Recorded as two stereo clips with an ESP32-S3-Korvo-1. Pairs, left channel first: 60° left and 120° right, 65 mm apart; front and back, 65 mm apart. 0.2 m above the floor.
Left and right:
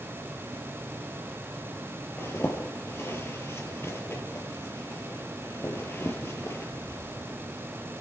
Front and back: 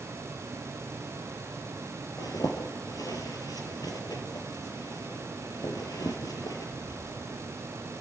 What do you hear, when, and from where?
2.2 s a zipper: 10° left, 4 m